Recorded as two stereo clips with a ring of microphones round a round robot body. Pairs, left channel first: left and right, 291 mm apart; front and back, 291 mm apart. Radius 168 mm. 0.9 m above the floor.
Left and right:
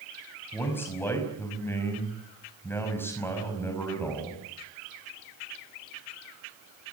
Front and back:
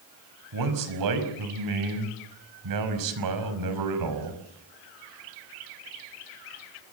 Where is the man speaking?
175° left, 5.5 m.